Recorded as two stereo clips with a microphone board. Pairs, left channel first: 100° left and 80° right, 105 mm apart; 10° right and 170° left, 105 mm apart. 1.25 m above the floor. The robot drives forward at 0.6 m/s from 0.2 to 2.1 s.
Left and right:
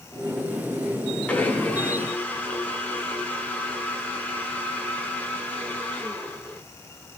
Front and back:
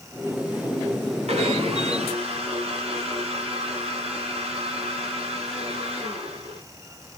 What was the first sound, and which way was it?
A blender, straight behind.